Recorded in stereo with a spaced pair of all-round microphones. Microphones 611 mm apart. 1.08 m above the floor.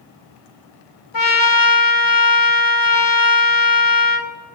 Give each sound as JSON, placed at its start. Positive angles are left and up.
{"t": 1.1, "sound": "a trumpet", "side_deg": 35, "distance_m": 1.0}